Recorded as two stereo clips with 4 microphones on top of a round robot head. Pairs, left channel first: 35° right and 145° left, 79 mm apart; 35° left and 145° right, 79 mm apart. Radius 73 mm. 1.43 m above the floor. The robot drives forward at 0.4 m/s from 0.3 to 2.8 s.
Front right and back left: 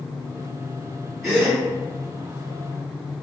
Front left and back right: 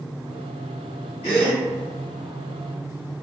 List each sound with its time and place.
1.2 s a gasp: 50° left, 1.6 m; by 1.6 s 55° left, 1.5 m